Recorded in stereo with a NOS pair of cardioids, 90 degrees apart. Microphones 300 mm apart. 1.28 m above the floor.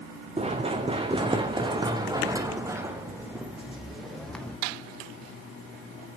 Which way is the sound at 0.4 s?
20° right.